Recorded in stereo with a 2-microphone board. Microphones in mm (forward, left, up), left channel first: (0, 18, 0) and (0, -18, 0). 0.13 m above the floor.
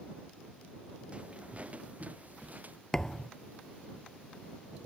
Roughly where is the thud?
Centre.